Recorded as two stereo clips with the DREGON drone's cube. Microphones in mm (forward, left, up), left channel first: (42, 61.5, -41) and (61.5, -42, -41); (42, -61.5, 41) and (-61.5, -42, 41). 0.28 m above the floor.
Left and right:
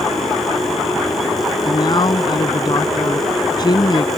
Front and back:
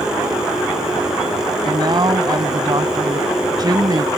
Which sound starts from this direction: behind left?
A man speaking, at 1.6 s.